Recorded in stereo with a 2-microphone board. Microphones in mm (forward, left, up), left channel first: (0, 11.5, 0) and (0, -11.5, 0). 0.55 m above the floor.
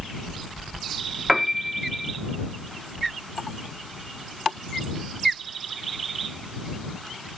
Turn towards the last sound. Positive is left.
turn(degrees=-10)  # may be behind; listen again after turning